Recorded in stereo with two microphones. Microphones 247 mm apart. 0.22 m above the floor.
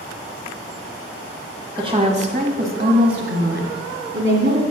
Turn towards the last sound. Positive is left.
turn(degrees=-55)  # may be behind; listen again after turning